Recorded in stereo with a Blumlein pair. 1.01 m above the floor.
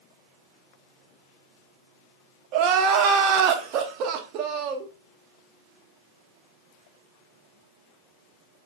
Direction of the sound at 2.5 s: 40° right.